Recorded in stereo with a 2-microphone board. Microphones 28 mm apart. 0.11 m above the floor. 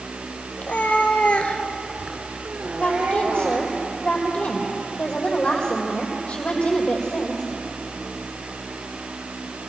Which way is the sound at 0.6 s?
70° left (ahead or behind).